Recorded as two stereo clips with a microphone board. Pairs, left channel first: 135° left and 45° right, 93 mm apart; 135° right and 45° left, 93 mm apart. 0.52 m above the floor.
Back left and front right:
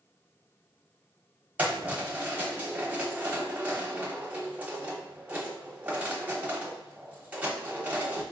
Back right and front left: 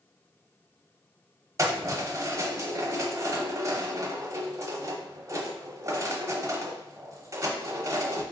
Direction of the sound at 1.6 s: 15° left.